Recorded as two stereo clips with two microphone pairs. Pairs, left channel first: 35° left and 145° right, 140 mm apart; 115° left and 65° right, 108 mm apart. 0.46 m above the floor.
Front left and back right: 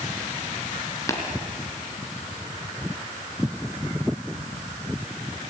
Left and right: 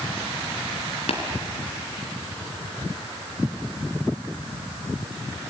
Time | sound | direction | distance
1.1 | tapping | 105° left | 3.5 m